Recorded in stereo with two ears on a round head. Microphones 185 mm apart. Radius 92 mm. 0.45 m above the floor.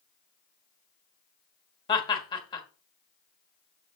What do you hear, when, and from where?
1.9 s laughter: 25° left (ahead or behind), 1.6 m